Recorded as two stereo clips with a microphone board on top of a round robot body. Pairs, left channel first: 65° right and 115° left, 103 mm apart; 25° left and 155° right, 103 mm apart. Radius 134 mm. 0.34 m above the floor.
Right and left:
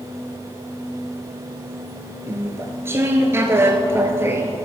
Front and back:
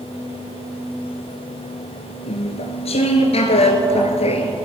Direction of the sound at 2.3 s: 45° left.